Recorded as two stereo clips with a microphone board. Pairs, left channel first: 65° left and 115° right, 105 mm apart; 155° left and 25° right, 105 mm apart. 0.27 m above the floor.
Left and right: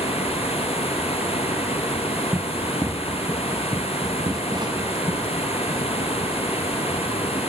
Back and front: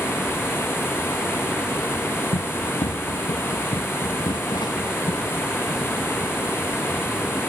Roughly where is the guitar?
No guitar in this recording.